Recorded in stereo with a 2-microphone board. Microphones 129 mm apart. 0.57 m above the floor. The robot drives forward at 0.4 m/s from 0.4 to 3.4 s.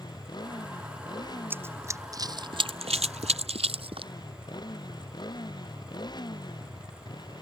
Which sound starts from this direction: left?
A motorcycle, at 0.0 s.